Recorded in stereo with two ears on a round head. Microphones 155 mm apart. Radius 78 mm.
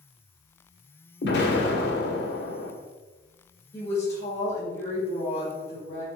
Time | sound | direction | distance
1.2 | an explosion | 70° left (ahead or behind) | 1.7 m
3.7 | a woman speaking | 20° left (ahead or behind) | 2.5 m